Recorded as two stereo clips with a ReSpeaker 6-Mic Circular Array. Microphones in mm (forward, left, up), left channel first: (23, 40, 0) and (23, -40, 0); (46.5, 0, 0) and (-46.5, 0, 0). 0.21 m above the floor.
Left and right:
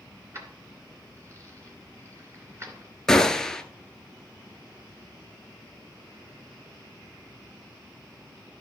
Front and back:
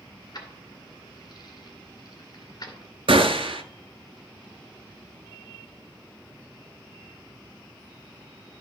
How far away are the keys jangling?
About 2 m.